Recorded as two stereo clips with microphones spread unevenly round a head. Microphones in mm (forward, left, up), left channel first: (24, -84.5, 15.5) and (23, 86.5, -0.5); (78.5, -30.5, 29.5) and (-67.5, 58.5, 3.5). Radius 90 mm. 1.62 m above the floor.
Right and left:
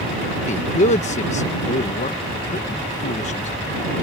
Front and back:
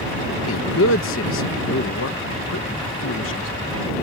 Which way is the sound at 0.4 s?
45° right.